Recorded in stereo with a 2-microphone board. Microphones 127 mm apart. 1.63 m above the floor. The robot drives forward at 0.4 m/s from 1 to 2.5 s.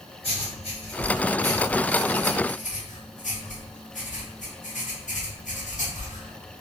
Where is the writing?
50° left (ahead or behind), 1.3 m; by 6.6 s 80° left, 1.0 m.